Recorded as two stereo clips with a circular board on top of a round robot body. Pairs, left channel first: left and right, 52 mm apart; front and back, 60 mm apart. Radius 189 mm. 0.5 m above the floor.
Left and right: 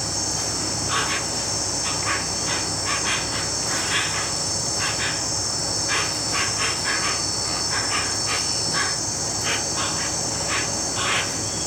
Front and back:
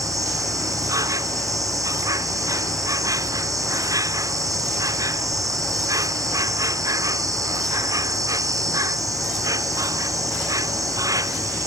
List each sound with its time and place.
0.0 s an insect: straight behind